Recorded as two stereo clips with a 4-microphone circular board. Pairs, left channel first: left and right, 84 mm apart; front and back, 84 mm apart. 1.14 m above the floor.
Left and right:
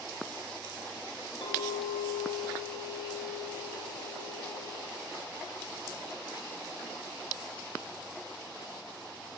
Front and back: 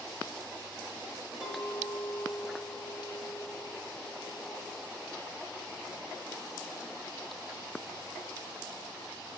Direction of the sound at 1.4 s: 110° left.